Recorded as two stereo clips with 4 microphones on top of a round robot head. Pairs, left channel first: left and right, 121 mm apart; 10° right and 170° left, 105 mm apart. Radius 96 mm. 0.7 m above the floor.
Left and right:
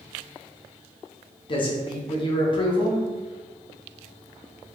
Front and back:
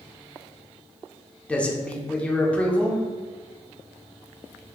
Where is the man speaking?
65° left, 0.7 m.